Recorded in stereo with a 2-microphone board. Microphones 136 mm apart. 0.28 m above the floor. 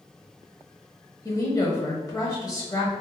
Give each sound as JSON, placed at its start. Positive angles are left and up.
{"t": 1.2, "sound": "a woman speaking", "side_deg": 25, "distance_m": 1.0}